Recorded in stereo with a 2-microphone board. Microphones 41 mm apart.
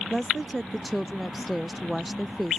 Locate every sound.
0.1 s a woman speaking: centre (ahead or behind)